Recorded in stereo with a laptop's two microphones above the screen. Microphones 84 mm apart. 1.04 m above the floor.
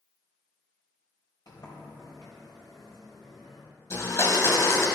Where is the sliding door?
60° left (ahead or behind), 2.5 m.